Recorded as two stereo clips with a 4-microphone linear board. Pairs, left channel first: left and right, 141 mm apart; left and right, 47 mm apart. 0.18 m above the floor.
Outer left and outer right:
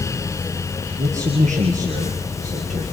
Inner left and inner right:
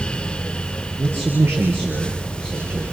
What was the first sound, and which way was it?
A man speaking, 60° right (ahead or behind).